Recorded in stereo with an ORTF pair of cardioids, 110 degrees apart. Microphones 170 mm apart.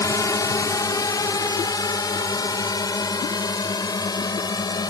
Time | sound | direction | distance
0.0 | a drone | 20° left | ?